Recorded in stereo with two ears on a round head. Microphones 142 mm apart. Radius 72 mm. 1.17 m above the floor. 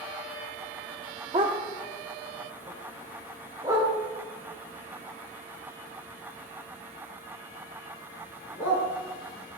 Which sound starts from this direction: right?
A dog barking, at 1.3 s.